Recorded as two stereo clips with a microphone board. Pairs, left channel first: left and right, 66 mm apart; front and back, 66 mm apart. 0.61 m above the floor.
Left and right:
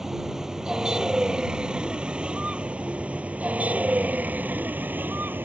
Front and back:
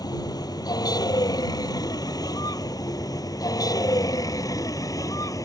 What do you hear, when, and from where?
0.0 s a vehicle: 5° right; by 5.5 s 30° right